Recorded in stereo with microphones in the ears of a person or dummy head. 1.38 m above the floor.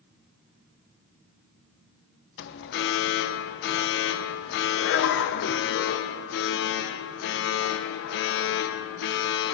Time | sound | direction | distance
2.4 | an alarm | 55° left (ahead or behind) | 0.6 m